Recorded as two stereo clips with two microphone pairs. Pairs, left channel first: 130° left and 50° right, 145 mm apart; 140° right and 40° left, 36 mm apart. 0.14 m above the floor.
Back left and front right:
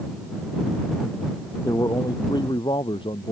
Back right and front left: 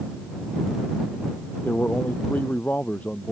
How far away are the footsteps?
No footsteps in this recording.